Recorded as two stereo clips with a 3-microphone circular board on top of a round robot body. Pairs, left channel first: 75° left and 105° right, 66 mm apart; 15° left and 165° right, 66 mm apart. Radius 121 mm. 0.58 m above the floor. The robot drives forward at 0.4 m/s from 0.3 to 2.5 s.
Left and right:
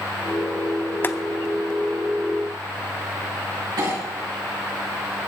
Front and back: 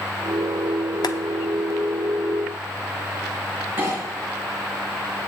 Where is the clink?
105° right, 5.5 m.